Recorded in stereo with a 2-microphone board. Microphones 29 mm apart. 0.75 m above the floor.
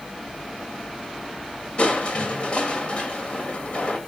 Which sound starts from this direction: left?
Crushing, at 1.8 s.